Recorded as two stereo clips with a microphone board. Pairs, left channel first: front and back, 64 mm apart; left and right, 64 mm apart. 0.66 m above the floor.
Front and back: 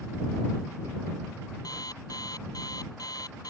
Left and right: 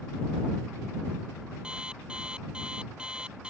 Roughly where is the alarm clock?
Ahead.